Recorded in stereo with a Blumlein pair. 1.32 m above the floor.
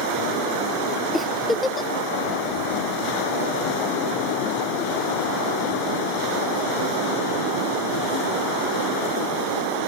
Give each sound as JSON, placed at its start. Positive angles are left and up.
{"t": 1.1, "sound": "a giggle", "azimuth_deg": 10, "distance_m": 0.6}